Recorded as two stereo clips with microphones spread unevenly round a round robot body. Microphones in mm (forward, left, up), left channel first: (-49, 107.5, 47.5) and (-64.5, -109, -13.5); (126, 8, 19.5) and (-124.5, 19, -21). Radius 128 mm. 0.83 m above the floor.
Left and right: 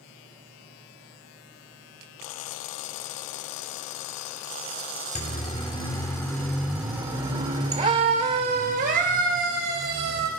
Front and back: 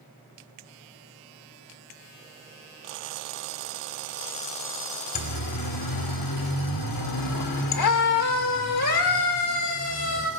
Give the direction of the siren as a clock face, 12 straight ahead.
11 o'clock.